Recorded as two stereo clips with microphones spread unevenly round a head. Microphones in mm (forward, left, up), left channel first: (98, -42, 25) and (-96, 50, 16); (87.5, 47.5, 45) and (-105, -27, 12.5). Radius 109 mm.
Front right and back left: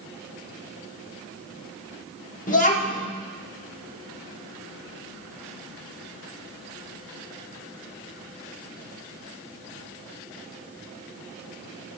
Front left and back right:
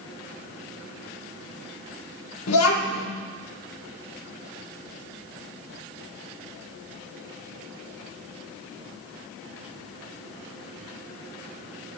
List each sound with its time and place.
2.5 s a child speaking: 30° left, 1.4 m